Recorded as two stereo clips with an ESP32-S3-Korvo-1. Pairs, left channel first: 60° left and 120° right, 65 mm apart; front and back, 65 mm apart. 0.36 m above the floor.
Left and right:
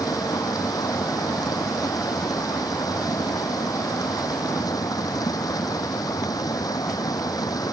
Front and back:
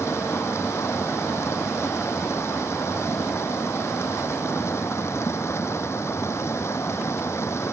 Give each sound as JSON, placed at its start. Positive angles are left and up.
{"t": 0.0, "sound": "running water", "azimuth_deg": 45}